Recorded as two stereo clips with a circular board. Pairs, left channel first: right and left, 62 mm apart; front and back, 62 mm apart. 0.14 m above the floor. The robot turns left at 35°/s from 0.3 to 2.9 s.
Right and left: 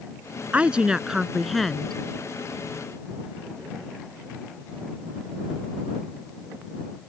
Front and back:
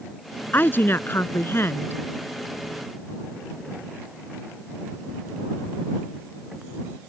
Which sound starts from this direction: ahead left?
A woman speaking, at 0.5 s.